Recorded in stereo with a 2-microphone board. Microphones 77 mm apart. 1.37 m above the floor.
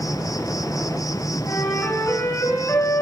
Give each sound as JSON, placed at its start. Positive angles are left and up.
{"t": 0.0, "sound": "an insect", "side_deg": 55, "distance_m": 1.1}
{"t": 1.5, "sound": "a flute", "side_deg": 45, "distance_m": 8.5}